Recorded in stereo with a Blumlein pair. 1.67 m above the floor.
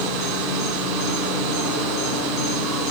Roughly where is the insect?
Ahead left.